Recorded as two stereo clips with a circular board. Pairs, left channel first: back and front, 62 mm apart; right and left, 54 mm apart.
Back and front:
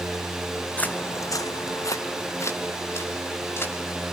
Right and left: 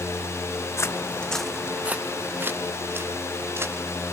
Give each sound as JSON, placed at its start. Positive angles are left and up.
{"t": 0.8, "sound": "footsteps", "azimuth_deg": -115, "distance_m": 0.9}